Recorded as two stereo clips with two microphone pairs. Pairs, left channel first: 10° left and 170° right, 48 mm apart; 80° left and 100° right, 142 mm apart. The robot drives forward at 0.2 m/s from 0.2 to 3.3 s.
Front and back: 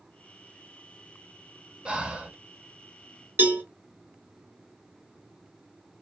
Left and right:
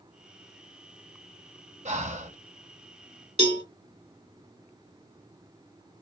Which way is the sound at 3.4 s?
135° right.